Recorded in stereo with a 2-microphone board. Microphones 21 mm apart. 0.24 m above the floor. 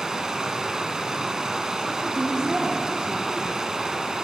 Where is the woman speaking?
50° right (ahead or behind), 6.5 m.